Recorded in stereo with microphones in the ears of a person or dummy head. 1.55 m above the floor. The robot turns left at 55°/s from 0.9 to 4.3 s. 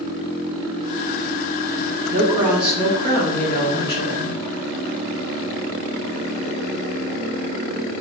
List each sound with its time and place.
2.1 s a woman speaking: 150° right, 2 m; by 4.4 s 90° left, 2 m